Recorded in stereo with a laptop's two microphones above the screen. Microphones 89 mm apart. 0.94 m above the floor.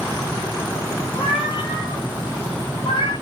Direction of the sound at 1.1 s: 60° left (ahead or behind).